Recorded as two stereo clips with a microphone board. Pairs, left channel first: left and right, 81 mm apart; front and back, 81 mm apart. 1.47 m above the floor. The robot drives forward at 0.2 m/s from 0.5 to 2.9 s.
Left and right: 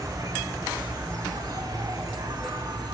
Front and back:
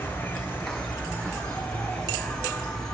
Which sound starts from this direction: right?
An insect, at 0.0 s.